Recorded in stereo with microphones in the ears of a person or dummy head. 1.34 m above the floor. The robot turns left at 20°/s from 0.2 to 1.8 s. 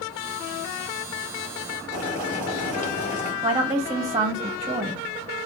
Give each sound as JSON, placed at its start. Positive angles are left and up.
{"t": 1.9, "sound": "boiling", "side_deg": -20, "distance_m": 3.0}
{"t": 3.4, "sound": "a woman speaking", "side_deg": -25, "distance_m": 1.2}